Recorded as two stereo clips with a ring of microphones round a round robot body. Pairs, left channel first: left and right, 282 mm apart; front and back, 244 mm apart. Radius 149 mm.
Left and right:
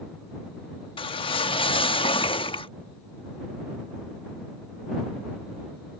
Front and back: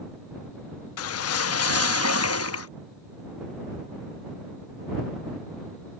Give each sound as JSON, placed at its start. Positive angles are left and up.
{"t": 1.0, "sound": "a whoosh", "azimuth_deg": 20}